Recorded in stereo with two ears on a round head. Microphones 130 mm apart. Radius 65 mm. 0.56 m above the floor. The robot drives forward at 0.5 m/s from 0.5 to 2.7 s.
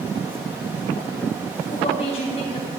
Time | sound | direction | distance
1.7 | a woman speaking | 45° left (ahead or behind) | 3.5 m